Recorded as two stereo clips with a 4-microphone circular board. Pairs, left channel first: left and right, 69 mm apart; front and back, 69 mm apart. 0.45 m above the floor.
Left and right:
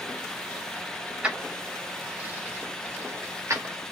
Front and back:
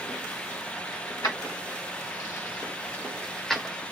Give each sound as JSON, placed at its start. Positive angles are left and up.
{"t": 1.2, "sound": "keys jangling", "azimuth_deg": -15, "distance_m": 1.3}